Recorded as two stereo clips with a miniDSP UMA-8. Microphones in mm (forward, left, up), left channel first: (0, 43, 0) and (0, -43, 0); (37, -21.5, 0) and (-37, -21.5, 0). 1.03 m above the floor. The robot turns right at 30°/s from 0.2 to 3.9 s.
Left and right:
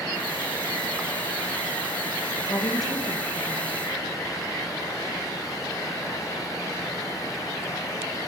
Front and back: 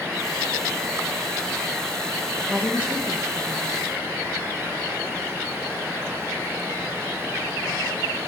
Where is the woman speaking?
110° left, 1.1 m; by 3.7 s 145° left, 1.1 m.